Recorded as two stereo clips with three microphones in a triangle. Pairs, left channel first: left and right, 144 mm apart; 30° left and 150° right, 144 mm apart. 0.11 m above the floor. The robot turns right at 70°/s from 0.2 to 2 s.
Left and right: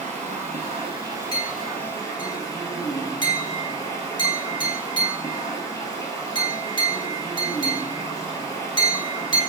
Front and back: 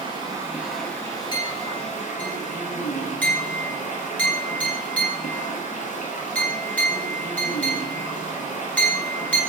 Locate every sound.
0.0 s running water: 100° right, 0.8 m; by 9.5 s 30° left, 0.8 m
1.3 s a clink: 55° left, 0.8 m; by 9.4 s 100° left, 0.8 m